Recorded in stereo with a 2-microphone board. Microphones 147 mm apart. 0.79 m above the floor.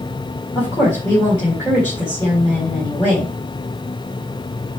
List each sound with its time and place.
0.6 s a woman speaking: 15° left (ahead or behind), 3.5 m